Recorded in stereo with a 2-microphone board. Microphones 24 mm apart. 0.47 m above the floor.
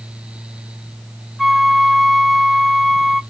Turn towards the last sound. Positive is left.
turn(degrees=0)  # may be behind; listen again after turning